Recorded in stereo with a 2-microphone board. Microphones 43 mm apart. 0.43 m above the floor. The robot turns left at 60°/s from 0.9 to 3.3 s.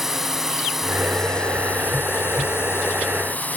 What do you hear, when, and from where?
0.0 s a drone: 175° right; by 3.6 s 45° left